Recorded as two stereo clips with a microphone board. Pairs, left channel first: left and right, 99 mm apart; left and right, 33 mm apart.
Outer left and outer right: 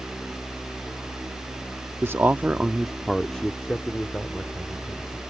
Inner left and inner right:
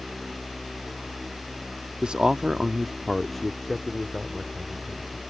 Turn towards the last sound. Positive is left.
turn(degrees=20)  # may be behind; listen again after turning